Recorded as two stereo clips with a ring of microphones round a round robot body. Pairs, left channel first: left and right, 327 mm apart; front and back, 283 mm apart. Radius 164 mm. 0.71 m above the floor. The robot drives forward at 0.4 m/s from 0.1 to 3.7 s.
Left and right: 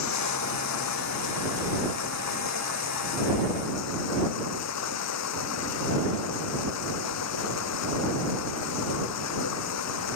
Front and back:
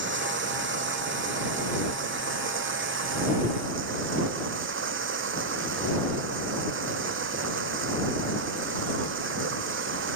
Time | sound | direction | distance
0.0 | running water | 130° left | ?